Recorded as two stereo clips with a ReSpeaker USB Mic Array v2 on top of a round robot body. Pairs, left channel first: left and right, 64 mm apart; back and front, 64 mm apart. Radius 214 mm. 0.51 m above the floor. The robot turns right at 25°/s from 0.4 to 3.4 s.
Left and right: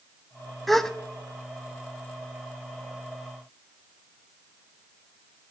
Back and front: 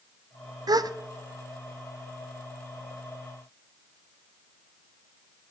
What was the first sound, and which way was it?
A gasp, 5° left.